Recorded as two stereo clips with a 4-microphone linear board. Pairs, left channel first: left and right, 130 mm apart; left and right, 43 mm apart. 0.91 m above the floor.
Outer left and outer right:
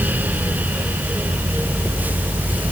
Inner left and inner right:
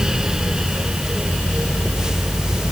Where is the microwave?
I don't hear a microwave.